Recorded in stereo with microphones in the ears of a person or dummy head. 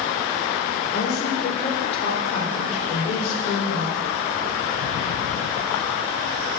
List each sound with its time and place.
0.9 s a woman speaking: 40° left (ahead or behind), 6 m; by 4.0 s 45° left (ahead or behind), 7.5 m